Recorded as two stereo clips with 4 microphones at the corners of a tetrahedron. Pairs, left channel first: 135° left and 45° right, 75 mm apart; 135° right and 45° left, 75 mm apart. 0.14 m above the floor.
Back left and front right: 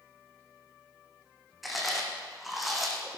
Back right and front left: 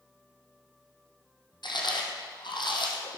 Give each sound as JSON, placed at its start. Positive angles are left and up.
{"t": 1.6, "sound": "chewing", "azimuth_deg": -135, "distance_m": 2.5}